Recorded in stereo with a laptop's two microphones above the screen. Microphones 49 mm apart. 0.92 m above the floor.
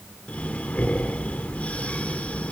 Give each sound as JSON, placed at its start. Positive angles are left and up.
{"t": 0.3, "sound": "breathing", "side_deg": 30, "distance_m": 1.0}